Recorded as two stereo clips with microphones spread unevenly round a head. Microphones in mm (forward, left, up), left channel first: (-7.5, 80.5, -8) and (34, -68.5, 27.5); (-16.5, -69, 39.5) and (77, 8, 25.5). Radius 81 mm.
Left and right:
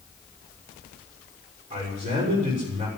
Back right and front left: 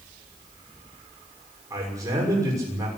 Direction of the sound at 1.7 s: 25° right.